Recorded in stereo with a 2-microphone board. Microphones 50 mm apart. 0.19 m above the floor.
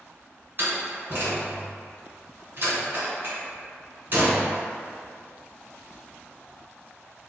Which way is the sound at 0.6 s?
45° right (ahead or behind).